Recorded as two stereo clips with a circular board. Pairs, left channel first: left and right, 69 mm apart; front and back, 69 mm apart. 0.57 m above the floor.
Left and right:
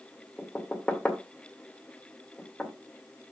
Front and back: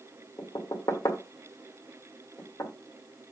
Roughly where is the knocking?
Ahead.